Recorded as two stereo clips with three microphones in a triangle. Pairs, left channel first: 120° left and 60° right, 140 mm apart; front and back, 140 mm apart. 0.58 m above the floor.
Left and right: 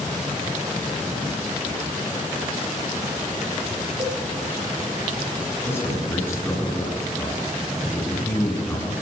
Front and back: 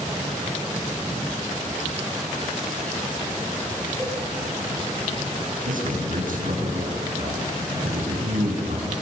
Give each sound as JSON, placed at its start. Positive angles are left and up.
{"t": 4.0, "sound": "a cowbell", "azimuth_deg": -105, "distance_m": 8.0}
{"t": 5.7, "sound": "a man speaking", "azimuth_deg": -165, "distance_m": 7.0}